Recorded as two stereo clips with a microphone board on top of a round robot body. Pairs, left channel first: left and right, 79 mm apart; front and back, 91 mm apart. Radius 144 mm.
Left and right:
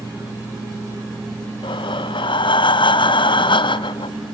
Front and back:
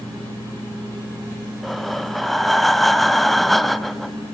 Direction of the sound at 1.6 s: 90° left.